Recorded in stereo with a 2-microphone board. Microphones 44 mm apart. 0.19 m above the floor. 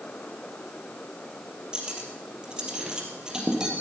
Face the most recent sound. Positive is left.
turn(degrees=-15)  # may be behind; listen again after turning